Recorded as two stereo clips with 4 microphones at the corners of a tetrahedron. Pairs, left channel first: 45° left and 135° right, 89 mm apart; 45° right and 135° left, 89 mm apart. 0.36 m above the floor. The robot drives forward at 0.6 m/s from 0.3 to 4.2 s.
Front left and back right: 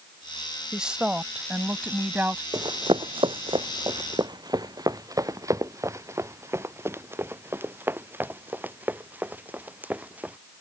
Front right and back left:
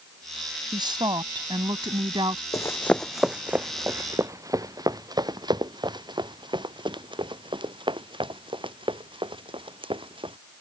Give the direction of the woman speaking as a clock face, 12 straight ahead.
7 o'clock.